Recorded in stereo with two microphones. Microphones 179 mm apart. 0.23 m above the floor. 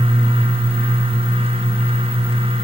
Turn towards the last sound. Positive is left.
No sound to turn to.